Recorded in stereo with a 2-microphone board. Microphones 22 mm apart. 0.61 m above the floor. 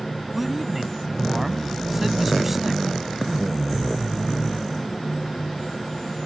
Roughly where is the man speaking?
Centre.